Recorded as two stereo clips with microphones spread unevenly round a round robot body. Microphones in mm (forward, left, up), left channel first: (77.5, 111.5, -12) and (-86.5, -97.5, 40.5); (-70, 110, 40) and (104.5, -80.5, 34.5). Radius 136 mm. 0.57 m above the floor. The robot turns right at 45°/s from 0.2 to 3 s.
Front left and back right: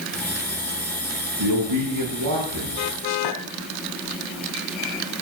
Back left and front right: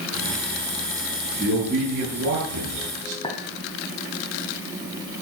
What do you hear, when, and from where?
1.4 s a man speaking: 130° right, 6 m; by 3.1 s 55° right, 6 m
3.2 s a clink: 65° left, 3 m